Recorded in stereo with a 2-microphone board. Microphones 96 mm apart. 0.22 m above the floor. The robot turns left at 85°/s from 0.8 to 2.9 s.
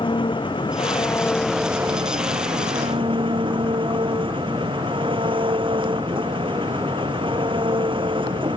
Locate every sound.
0.0 s an engine running: 60° left; by 8.6 s 120° right